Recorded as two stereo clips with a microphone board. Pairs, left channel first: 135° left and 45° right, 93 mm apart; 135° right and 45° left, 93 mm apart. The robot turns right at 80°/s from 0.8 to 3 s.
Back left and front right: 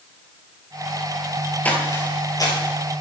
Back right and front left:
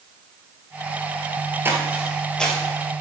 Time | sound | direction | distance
1.6 | footsteps | 80° left | 1.9 m